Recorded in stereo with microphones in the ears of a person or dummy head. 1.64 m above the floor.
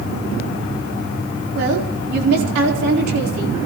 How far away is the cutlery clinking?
No cutlery clinking in this recording.